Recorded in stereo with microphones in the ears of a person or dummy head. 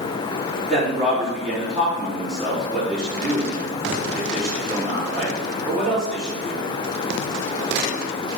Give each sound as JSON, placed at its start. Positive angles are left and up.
{"t": 0.7, "sound": "a man speaking", "side_deg": 0, "distance_m": 4.0}